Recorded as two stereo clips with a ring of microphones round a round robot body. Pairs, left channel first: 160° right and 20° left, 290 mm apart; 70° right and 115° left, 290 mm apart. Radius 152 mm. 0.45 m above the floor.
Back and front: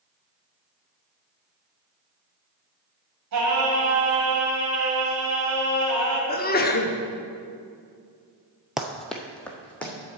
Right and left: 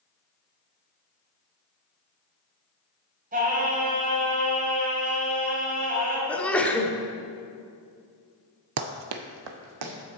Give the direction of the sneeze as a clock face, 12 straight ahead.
5 o'clock.